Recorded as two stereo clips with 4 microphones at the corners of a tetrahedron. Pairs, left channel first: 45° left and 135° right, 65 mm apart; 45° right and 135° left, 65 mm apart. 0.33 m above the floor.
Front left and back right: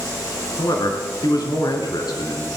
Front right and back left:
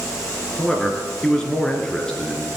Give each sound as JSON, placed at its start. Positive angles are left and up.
{"t": 0.6, "sound": "a man speaking", "azimuth_deg": 35, "distance_m": 3.5}